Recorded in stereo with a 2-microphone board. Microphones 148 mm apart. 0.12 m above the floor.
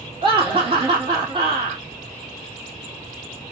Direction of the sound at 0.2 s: 30° right (ahead or behind).